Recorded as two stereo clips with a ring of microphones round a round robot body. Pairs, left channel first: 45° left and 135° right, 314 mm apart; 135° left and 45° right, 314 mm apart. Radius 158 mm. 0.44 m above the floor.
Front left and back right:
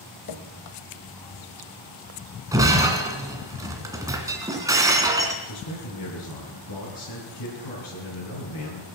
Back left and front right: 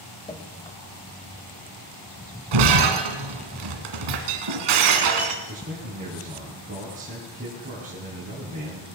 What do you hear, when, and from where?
0.3 s dripping: 60° left, 1.3 m
2.5 s breaking glass: 55° right, 1.9 m
5.5 s a man speaking: 20° left, 5.5 m